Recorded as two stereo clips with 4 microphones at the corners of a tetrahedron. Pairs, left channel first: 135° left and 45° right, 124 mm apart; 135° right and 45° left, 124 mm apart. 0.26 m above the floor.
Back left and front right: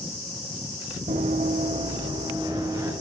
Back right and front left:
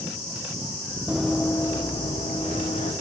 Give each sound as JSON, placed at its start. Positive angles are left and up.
{"t": 1.1, "sound": "running footsteps", "azimuth_deg": -35, "distance_m": 0.5}